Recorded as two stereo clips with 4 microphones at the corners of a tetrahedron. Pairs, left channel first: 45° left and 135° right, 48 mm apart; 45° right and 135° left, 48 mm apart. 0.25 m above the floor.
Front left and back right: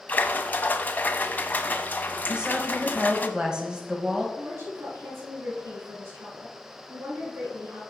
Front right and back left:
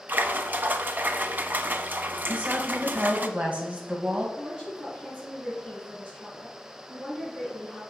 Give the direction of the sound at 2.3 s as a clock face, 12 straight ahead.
6 o'clock.